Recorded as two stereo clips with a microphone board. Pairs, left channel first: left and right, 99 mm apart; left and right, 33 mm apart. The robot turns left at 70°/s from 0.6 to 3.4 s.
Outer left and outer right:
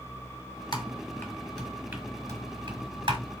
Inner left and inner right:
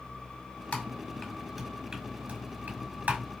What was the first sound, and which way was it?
Typing on a keyboard, 50° left (ahead or behind).